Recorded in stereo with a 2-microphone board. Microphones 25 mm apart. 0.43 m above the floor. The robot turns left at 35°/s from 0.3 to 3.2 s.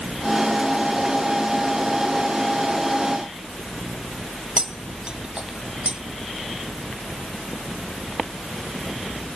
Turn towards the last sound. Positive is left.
turn(degrees=-35)  # may be behind; listen again after turning